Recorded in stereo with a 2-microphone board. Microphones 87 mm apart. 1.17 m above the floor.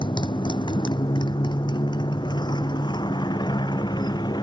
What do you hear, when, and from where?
0.0 s a motorcycle: 60° left (ahead or behind); by 4.4 s 55° left (ahead or behind)